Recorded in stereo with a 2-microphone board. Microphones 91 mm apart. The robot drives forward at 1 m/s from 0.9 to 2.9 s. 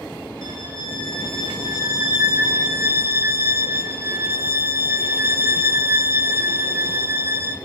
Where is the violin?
45° right (ahead or behind), 2.0 m; by 7.5 s 30° right (ahead or behind), 2.5 m.